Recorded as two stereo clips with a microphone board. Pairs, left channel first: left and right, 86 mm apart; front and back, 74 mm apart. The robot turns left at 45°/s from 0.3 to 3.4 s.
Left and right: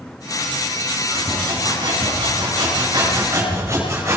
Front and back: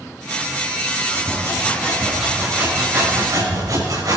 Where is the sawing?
45° right, 5.5 m; by 4.2 s 145° right, 5.5 m.